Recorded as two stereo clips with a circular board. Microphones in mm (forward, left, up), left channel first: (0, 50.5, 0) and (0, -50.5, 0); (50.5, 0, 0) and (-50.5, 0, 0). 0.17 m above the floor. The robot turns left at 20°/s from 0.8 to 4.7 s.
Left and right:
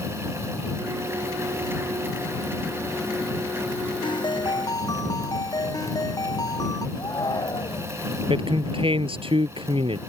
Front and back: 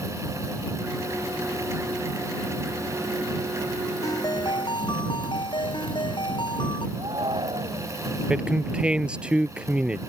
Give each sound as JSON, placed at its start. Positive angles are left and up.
{"t": 4.0, "sound": "a ringtone", "azimuth_deg": 55}
{"t": 7.0, "sound": "a shout", "azimuth_deg": 140}
{"t": 8.3, "sound": "a man speaking", "azimuth_deg": -100}